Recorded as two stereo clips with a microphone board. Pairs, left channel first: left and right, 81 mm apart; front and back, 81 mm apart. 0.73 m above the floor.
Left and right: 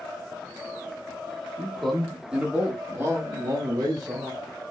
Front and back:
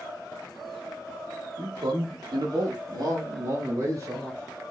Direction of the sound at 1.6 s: 170° left.